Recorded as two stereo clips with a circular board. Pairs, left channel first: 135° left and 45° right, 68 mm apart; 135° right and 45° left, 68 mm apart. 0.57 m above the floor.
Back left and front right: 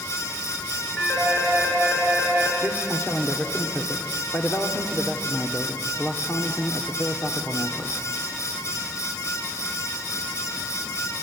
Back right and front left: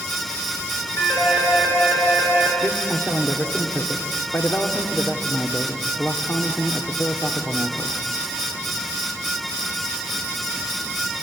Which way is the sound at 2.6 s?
Straight behind.